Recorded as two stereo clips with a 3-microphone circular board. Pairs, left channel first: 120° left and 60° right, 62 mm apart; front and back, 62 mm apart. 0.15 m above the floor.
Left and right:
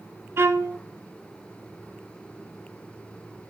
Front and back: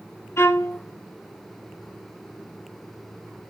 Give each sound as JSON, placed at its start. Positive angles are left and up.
{"t": 0.4, "sound": "a violin", "azimuth_deg": -30, "distance_m": 0.8}